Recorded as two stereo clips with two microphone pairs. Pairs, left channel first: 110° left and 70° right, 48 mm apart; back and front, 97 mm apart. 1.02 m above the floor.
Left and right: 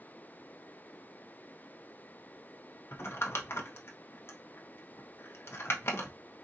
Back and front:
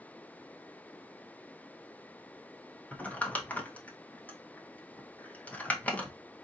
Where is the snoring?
I don't hear snoring.